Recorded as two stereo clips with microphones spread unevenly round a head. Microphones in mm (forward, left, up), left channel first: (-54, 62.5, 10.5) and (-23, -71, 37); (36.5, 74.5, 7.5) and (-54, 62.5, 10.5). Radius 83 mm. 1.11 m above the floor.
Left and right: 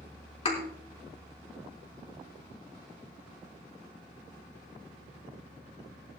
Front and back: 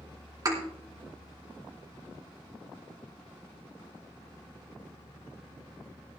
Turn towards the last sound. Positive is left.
turn(degrees=145)